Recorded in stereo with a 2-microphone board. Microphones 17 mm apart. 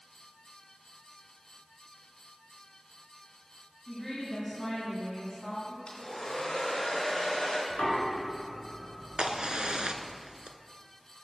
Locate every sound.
3.9 s a woman speaking: 15° left (ahead or behind), 2.5 m
5.9 s a hair dryer: 65° left (ahead or behind), 3 m
7.7 s knocking: 35° left (ahead or behind), 2.5 m
9.2 s a crack: 55° right (ahead or behind), 0.6 m